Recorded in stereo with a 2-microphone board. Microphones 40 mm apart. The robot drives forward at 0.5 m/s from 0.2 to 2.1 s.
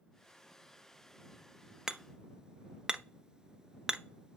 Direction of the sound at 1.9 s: 15° right (ahead or behind).